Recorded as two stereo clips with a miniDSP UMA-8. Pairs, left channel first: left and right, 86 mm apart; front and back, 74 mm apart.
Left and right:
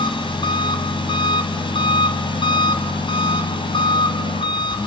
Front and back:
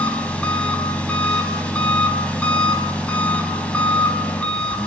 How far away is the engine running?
About 3 m.